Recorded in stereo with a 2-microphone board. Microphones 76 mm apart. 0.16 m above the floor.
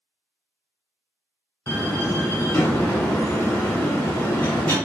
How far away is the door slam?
About 1.2 m.